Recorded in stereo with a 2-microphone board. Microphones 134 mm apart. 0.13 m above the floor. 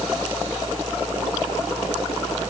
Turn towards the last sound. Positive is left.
No sound to turn to.